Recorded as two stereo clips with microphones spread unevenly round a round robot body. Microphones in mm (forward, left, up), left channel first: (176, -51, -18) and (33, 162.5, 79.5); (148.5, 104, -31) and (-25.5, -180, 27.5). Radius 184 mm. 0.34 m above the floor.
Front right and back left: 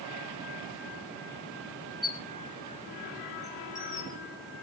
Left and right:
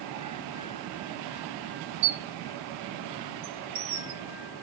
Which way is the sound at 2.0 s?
135° right.